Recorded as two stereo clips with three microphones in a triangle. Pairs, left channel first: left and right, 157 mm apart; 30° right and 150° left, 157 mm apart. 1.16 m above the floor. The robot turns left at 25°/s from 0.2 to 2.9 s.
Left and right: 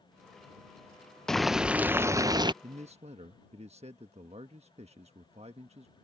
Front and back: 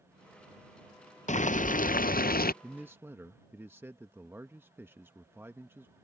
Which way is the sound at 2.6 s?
130° right.